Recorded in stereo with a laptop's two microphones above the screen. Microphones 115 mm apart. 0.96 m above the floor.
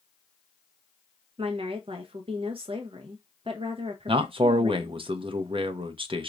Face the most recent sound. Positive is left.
turn(degrees=-50)  # may be behind; listen again after turning